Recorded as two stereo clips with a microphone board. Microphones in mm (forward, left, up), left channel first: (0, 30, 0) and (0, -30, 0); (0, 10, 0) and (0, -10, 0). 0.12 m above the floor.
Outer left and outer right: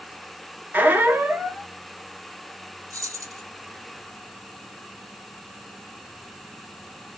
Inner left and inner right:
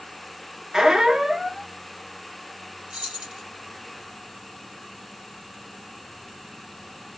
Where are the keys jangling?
60° right (ahead or behind), 2 m.